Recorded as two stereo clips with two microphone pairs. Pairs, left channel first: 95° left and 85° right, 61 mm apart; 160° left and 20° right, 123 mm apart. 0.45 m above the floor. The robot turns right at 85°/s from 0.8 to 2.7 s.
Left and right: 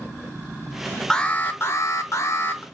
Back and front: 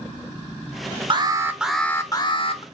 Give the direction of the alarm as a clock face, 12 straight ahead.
11 o'clock.